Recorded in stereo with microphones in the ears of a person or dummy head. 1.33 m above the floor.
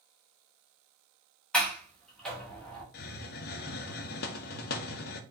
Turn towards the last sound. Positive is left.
turn(degrees=55)  # may be behind; listen again after turning